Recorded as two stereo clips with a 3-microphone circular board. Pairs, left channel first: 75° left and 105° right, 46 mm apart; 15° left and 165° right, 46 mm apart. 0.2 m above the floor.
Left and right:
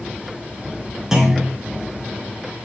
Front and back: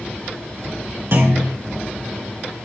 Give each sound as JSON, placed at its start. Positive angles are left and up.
{"t": 1.1, "sound": "a clunk", "azimuth_deg": 180, "distance_m": 3.5}